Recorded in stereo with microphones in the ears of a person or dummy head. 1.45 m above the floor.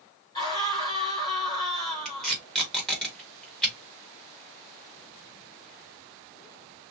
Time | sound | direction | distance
0.3 | a scream | 20° left (ahead or behind) | 4 m
2.0 | tape being pulled | 5° left (ahead or behind) | 2.5 m